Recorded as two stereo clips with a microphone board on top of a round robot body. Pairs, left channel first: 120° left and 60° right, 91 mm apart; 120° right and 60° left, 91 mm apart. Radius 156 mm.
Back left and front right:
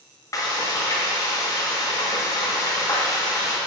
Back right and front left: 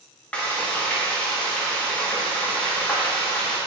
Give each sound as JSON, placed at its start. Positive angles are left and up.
{"t": 0.3, "sound": "frying", "azimuth_deg": 165, "distance_m": 1.9}